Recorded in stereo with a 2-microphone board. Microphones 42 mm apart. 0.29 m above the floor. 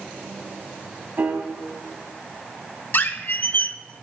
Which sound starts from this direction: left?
A squeak, at 2.9 s.